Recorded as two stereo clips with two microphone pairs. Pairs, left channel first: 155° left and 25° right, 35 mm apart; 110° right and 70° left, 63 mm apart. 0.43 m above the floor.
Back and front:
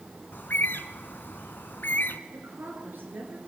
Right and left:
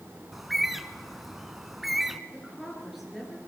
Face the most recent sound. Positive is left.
turn(degrees=-15)